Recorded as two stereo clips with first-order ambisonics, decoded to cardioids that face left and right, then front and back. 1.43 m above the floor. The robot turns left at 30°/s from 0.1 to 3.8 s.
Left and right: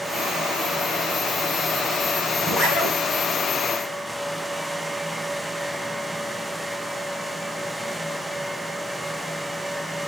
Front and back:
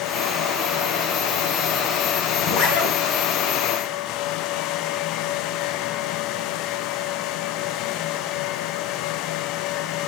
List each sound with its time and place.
2.4 s a zipper: 20° left, 6.5 m; by 2.9 s 5° left, 6.5 m